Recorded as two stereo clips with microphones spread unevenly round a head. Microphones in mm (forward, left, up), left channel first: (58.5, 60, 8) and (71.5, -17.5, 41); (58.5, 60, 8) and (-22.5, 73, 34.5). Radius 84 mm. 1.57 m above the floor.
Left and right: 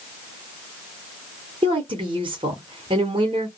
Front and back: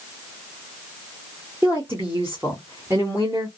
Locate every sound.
1.6 s a woman speaking: 115° right, 0.9 m